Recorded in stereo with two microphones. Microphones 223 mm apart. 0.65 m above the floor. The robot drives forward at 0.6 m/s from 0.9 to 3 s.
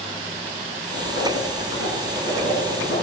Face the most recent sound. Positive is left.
turn(degrees=70)  # may be behind; listen again after turning